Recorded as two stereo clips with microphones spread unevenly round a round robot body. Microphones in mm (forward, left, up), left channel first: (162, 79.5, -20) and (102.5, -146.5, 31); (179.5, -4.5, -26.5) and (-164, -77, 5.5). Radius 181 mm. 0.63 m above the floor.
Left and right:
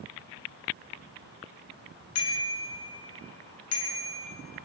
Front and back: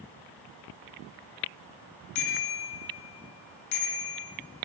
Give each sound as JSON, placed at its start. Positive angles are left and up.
{"t": 2.1, "sound": "a bicycle bell", "azimuth_deg": 60, "distance_m": 5.0}